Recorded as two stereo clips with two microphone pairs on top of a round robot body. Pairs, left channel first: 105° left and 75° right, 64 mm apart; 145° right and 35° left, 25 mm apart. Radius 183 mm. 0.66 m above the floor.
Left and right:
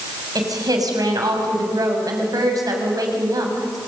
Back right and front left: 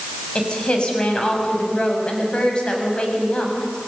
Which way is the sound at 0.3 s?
90° right.